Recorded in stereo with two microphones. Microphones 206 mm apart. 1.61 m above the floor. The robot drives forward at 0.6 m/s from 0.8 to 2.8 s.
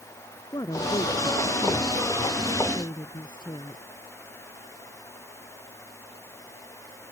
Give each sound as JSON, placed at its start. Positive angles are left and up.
{"t": 0.5, "sound": "a woman speaking", "side_deg": 20}